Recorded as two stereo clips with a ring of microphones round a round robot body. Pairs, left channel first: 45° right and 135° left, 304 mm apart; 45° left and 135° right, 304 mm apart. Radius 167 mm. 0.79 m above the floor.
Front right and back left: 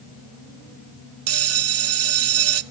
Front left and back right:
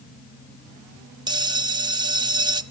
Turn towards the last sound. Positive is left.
turn(degrees=155)